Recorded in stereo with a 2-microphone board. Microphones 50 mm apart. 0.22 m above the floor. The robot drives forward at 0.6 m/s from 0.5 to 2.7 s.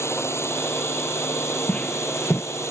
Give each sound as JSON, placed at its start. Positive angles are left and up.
{"t": 0.0, "sound": "a drone", "side_deg": 65}
{"t": 1.7, "sound": "footsteps", "side_deg": 25}